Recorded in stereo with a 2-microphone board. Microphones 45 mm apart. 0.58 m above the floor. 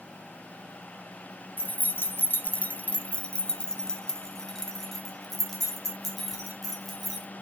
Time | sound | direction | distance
1.6 | keys jangling | 45° left (ahead or behind) | 0.7 m